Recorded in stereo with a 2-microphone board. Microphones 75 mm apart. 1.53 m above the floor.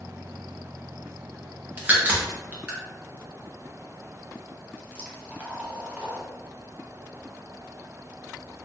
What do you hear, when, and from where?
1.8 s a crack: 25° right (ahead or behind), 0.9 m